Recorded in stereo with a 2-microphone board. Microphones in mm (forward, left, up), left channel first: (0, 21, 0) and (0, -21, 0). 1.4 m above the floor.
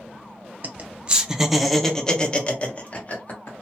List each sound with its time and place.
0.6 s laughter: 45° right (ahead or behind), 0.8 m; by 3.6 s 40° left (ahead or behind), 1.5 m